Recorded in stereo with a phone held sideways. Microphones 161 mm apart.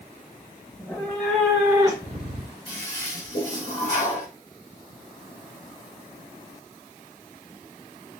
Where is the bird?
No bird in this recording.